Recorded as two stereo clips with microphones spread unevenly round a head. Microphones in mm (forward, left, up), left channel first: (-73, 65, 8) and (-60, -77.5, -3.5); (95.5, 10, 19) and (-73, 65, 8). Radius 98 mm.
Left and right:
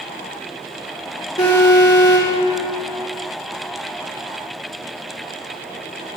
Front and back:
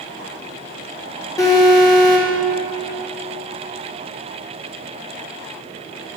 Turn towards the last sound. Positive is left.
turn(degrees=45)